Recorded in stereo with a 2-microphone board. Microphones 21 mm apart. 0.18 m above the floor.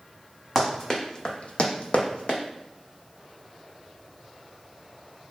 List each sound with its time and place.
0.6 s running footsteps: 15° left (ahead or behind), 0.8 m; by 2.4 s 60° left (ahead or behind), 0.7 m